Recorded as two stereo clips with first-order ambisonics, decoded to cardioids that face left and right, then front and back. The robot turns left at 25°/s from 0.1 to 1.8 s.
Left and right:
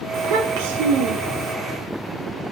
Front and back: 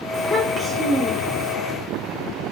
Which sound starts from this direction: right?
A child speaking, at 0.1 s.